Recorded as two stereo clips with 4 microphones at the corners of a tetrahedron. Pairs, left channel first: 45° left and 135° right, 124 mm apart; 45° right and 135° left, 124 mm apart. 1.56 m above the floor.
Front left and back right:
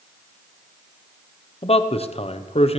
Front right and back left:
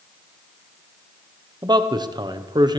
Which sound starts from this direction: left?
A man speaking, at 1.6 s.